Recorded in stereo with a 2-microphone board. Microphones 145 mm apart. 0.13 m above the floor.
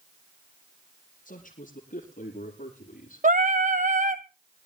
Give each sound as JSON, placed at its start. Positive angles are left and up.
{"t": 1.2, "sound": "a man speaking", "side_deg": 65, "distance_m": 5.0}
{"t": 3.2, "sound": "singing", "side_deg": -65, "distance_m": 0.7}